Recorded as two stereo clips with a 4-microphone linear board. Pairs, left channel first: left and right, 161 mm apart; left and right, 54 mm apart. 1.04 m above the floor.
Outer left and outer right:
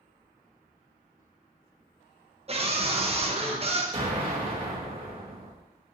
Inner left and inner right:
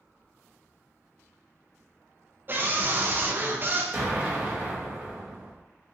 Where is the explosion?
35° right (ahead or behind), 0.9 m.